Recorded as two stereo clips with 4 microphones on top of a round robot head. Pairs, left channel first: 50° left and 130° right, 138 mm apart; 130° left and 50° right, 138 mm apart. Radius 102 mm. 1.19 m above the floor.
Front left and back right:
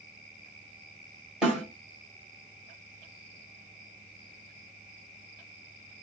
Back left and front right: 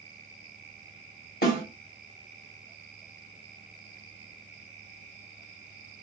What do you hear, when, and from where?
1.4 s a snare drum: 145° left, 1.6 m